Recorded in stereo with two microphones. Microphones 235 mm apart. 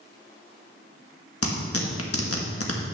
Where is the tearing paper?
75° left (ahead or behind), 1.4 m.